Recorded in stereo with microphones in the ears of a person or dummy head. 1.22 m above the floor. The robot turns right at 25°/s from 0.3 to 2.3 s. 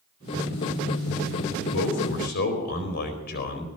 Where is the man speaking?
65° left (ahead or behind), 4.5 m; by 3.7 s 50° left (ahead or behind), 4.5 m.